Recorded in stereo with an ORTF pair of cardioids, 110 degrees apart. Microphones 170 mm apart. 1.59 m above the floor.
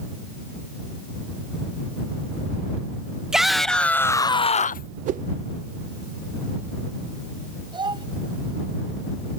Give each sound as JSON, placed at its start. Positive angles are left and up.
{"t": 3.3, "sound": "a shout", "azimuth_deg": -5}
{"t": 5.1, "sound": "a whoosh", "azimuth_deg": -50}
{"t": 7.7, "sound": "a child speaking", "azimuth_deg": -25}